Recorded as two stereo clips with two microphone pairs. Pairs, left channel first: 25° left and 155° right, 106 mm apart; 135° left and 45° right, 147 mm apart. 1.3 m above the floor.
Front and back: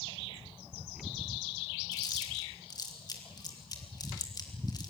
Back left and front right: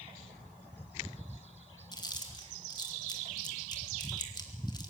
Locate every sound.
1.9 s chewing: 75° left, 2.5 m